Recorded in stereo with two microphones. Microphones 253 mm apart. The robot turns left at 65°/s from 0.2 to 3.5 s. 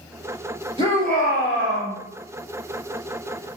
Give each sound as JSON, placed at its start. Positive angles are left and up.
{"t": 0.8, "sound": "a shout", "azimuth_deg": -25, "distance_m": 1.7}